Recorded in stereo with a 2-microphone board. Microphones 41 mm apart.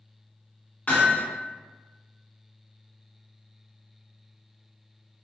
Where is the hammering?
35° left (ahead or behind), 1.4 m.